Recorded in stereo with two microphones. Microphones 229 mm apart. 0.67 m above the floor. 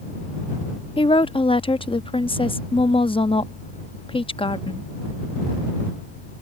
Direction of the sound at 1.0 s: 25° left (ahead or behind).